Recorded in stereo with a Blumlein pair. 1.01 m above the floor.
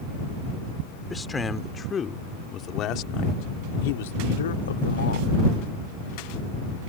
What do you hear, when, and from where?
1.1 s a man speaking: 10° left; by 5.3 s 70° left